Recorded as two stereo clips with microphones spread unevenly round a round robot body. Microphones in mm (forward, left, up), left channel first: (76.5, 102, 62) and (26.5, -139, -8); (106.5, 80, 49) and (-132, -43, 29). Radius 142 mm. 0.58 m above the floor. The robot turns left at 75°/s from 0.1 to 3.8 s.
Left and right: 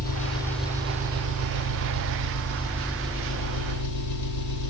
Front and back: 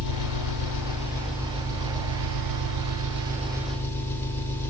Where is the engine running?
25° left, 4.5 m; by 4.7 s 110° left, 4.5 m.